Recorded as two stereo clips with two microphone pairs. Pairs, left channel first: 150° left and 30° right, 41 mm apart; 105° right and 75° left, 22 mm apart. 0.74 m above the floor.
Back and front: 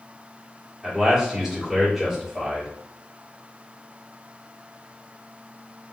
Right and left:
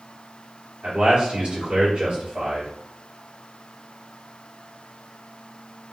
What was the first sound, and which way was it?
A man speaking, 50° left.